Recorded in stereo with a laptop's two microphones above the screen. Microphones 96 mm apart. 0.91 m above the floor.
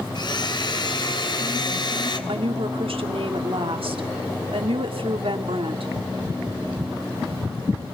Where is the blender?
50° left (ahead or behind), 2.5 m.